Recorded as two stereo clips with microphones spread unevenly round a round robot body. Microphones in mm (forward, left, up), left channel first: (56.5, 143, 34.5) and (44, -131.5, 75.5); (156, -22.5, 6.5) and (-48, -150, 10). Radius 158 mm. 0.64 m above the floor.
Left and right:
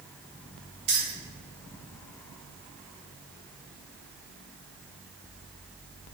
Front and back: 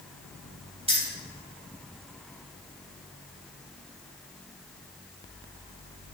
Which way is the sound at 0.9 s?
80° right.